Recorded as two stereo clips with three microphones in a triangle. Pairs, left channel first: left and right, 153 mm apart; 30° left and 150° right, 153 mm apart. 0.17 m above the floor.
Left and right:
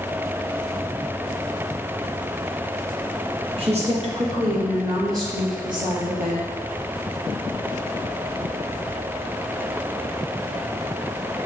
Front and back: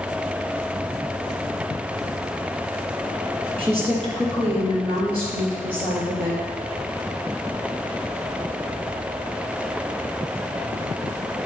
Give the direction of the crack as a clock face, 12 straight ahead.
No crack in this recording.